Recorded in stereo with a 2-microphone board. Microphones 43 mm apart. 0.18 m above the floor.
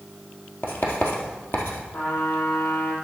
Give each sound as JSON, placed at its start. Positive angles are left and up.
{"t": 0.6, "sound": "writing", "side_deg": 65, "distance_m": 1.7}
{"t": 1.9, "sound": "a trumpet", "side_deg": 75, "distance_m": 4.0}